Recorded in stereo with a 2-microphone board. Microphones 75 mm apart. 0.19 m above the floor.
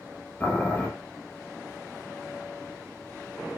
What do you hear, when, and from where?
0.4 s boiling: 20° left (ahead or behind), 0.7 m